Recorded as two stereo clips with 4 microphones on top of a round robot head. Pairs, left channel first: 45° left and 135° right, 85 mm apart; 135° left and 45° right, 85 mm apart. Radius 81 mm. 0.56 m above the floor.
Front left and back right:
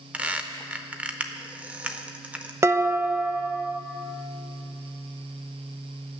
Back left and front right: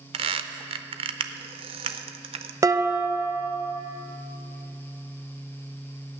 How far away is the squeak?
About 0.6 m.